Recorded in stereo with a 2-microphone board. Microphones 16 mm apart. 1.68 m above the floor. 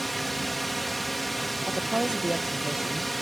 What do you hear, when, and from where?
0.0 s a drone: centre (ahead or behind)
1.7 s a woman speaking: 75° right (ahead or behind)